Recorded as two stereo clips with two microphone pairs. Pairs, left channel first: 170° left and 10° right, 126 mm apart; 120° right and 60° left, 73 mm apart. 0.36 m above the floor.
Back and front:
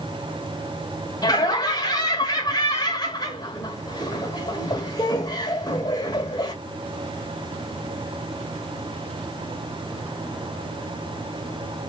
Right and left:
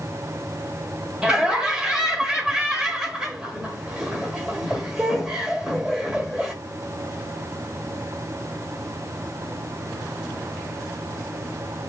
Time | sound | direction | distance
1.2 | laughter | 135° left | 1.1 m